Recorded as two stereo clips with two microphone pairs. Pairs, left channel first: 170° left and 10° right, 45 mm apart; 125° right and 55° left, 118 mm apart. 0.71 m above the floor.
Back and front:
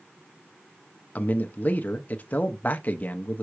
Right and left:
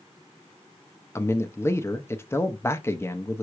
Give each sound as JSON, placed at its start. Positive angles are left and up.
{"t": 1.1, "sound": "a man speaking", "azimuth_deg": -175, "distance_m": 0.7}